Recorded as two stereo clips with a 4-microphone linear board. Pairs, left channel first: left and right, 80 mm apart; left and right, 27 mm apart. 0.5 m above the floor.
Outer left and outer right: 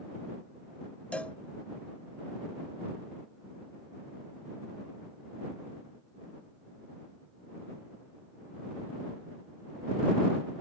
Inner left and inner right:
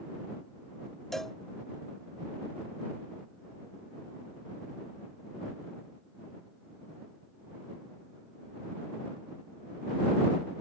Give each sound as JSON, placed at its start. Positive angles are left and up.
{"t": 1.1, "sound": "a cowbell", "side_deg": 15}